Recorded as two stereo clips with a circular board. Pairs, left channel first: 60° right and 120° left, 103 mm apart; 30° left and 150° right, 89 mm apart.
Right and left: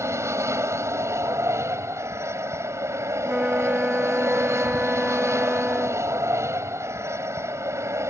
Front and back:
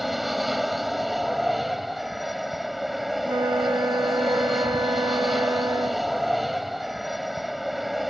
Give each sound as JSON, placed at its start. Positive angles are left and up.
{"t": 0.0, "sound": "an aircraft", "azimuth_deg": 125}
{"t": 3.2, "sound": "a flute", "azimuth_deg": -160}